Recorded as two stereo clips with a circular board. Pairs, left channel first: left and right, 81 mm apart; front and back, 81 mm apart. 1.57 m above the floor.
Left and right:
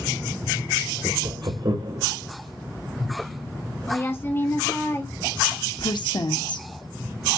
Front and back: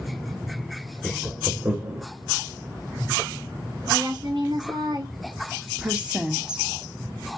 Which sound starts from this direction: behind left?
A woman speaking, at 3.9 s.